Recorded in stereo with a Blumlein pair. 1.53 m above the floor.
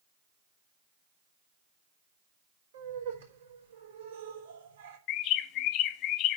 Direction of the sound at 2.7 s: 65° right.